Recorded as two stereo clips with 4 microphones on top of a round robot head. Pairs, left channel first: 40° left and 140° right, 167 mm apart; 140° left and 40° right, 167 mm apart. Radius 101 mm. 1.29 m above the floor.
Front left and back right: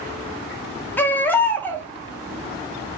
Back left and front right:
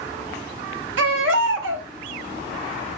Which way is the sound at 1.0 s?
40° right.